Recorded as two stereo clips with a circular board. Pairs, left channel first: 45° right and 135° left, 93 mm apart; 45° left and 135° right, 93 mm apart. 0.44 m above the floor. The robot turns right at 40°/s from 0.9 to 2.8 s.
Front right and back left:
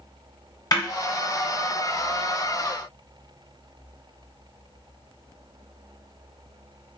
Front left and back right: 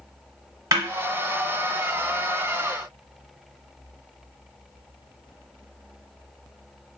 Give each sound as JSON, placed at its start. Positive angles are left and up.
{"t": 0.7, "sound": "a snare drum", "azimuth_deg": -85, "distance_m": 0.7}